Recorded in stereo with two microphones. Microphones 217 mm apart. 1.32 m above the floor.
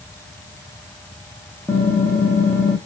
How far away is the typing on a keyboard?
About 0.9 m.